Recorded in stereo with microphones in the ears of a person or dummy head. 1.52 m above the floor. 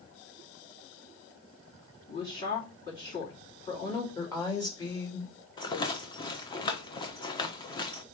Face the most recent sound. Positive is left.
turn(degrees=25)  # may be behind; listen again after turning